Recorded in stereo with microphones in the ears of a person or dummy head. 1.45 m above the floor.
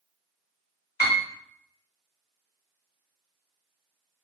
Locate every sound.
1.0 s a piano: 45° left (ahead or behind), 0.6 m